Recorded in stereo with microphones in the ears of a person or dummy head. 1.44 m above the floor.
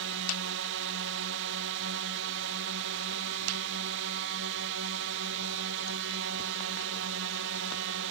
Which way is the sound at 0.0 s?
65° right (ahead or behind).